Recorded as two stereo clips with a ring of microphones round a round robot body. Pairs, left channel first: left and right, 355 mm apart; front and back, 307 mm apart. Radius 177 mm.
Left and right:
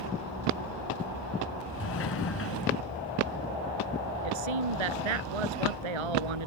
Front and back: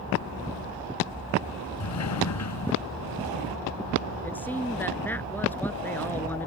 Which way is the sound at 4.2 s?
85° right.